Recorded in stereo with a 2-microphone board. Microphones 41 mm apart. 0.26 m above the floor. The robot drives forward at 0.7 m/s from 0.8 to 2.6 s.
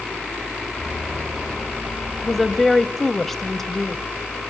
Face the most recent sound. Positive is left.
turn(degrees=5)  # may be behind; listen again after turning